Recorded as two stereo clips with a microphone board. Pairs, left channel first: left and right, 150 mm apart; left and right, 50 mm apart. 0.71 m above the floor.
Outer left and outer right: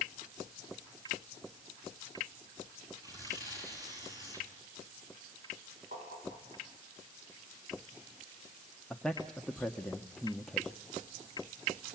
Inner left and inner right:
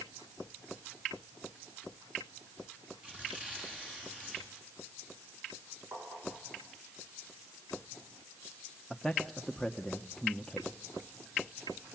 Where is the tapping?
60° right (ahead or behind), 9.5 m.